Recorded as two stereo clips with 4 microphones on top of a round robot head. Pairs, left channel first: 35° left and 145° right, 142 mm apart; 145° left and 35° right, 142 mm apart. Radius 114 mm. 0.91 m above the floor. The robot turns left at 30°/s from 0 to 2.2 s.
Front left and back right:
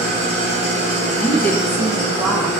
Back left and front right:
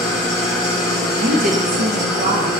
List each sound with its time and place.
0.0 s an engine running: 95° left, 1.0 m; by 2.6 s 30° left, 1.0 m
1.1 s a woman speaking: 30° right, 0.5 m; by 2.5 s 65° right, 0.5 m